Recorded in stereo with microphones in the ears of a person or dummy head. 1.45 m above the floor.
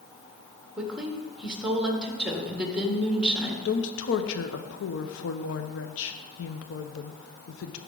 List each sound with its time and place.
0.8 s a woman speaking: 5° right (ahead or behind), 1.3 m
3.6 s a woman speaking: 70° left (ahead or behind), 0.7 m